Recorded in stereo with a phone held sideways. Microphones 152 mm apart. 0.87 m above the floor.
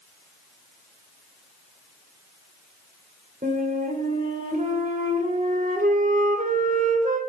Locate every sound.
3.4 s a flute: 60° right (ahead or behind), 3 m